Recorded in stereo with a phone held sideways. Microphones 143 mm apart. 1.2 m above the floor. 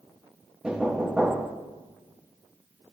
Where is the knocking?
5° right (ahead or behind), 0.6 m.